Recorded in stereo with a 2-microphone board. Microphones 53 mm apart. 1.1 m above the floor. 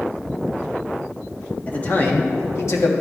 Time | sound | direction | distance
1.7 | a man speaking | 25° left (ahead or behind) | 1.6 m